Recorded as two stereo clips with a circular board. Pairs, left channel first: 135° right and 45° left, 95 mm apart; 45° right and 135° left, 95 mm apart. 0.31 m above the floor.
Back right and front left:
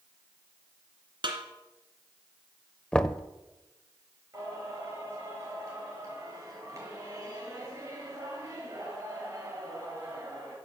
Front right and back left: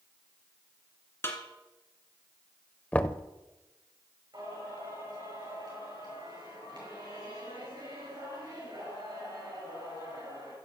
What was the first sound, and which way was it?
A snare drum, 15° left.